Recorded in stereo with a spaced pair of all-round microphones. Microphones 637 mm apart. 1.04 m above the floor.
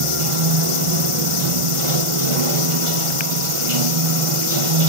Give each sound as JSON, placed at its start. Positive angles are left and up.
{"t": 0.0, "sound": "running water", "side_deg": -50, "distance_m": 1.1}